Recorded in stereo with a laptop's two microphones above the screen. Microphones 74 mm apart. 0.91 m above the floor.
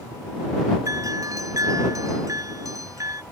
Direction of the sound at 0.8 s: 50° right (ahead or behind).